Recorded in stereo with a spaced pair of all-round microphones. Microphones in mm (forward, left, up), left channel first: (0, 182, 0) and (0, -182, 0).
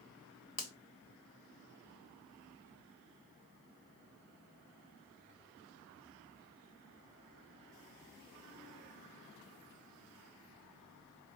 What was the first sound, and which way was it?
A finger snap, 70° left (ahead or behind).